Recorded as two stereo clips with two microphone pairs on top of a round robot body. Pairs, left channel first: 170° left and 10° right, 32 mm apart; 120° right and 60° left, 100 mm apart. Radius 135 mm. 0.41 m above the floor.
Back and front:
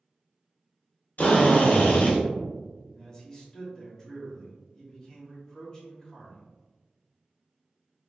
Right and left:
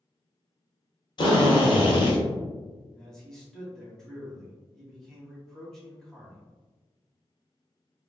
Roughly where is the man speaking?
Behind.